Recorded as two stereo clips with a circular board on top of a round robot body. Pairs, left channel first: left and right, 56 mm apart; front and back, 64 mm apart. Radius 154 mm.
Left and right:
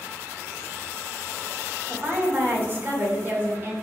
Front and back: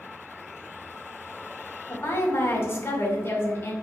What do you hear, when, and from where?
1.9 s a woman speaking: 45° right, 1.9 m